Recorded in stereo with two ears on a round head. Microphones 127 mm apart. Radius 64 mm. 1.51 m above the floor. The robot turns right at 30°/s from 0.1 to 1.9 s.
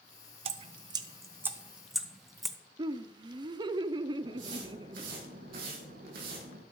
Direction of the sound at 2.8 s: 30° right (ahead or behind).